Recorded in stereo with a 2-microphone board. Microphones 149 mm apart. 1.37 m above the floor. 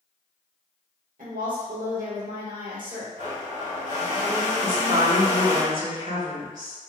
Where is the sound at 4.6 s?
70° right (ahead or behind), 1.6 m.